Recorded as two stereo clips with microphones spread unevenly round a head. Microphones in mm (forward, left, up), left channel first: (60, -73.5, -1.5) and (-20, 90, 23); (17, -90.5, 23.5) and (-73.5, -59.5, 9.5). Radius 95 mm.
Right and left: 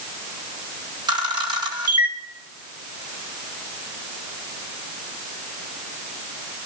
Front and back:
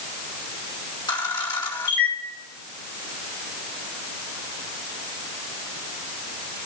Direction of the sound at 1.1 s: 50° left.